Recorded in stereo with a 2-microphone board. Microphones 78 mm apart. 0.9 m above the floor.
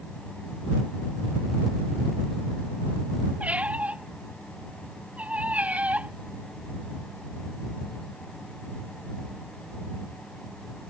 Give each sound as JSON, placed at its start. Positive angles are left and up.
{"t": 3.4, "sound": "a squeak", "side_deg": -20}